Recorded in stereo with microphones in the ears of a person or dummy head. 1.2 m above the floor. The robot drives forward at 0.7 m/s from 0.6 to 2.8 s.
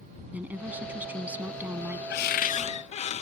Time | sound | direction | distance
0.3 | a woman speaking | 10° right (ahead or behind) | ?
2.1 | a cupboard door | 60° left (ahead or behind) | ?